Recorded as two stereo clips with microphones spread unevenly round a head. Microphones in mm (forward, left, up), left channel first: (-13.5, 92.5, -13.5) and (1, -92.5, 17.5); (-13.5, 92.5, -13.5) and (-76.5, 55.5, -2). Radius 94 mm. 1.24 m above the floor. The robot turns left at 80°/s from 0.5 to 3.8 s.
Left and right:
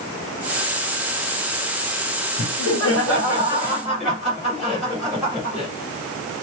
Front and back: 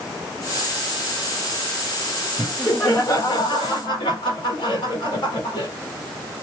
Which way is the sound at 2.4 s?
115° left.